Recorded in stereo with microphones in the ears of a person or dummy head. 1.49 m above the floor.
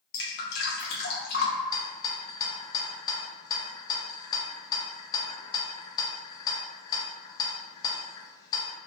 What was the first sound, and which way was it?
Dripping, 65° left (ahead or behind).